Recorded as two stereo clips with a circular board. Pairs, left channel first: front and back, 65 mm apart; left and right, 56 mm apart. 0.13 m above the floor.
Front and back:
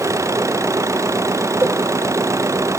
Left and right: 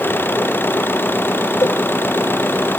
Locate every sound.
0.0 s an engine running: 140° left
1.6 s a cowbell: 120° left